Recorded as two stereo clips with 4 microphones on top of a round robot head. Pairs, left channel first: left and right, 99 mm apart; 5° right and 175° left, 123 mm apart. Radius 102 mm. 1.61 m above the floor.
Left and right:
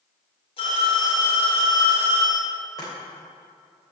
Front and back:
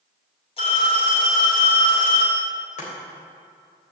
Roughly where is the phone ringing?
Ahead left.